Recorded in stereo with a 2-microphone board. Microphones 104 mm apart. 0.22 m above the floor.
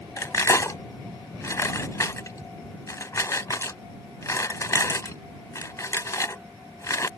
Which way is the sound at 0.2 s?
35° left (ahead or behind).